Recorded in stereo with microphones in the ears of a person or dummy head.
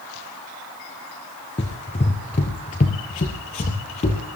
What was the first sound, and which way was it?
Running footsteps, 20° left (ahead or behind).